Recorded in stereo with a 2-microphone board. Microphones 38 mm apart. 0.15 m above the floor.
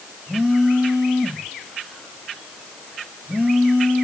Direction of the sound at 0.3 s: 25° right (ahead or behind).